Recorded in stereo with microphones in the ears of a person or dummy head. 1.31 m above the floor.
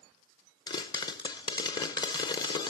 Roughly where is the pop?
Left.